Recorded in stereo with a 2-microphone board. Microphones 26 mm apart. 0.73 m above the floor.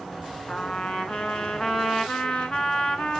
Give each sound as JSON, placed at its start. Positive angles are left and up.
{"t": 0.5, "sound": "a trumpet", "side_deg": 40, "distance_m": 1.2}